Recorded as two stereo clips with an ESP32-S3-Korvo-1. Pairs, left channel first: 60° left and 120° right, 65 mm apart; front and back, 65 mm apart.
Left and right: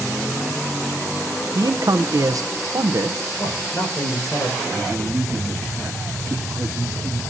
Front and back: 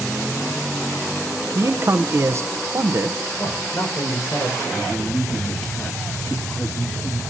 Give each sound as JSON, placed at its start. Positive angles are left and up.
{"t": 1.6, "sound": "a man speaking", "azimuth_deg": -135, "distance_m": 0.8}
{"t": 3.4, "sound": "a man speaking", "azimuth_deg": 30, "distance_m": 5.5}
{"t": 4.7, "sound": "a man speaking", "azimuth_deg": -55, "distance_m": 2.5}